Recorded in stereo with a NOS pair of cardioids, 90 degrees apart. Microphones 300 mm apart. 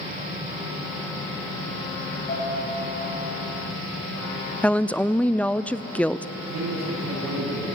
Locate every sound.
2.3 s a piano: 35° left, 8.5 m
4.6 s a woman speaking: 5° left, 0.5 m
6.4 s a man speaking: 60° right, 9.5 m